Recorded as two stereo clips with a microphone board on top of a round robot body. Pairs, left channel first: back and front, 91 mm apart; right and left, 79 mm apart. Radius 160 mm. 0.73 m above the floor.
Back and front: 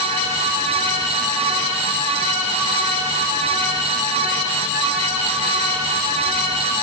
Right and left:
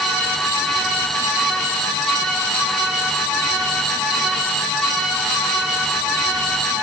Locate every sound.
Only background noise.